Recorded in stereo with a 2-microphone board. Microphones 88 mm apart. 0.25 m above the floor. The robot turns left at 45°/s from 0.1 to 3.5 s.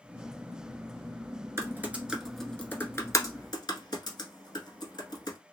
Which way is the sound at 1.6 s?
30° right (ahead or behind).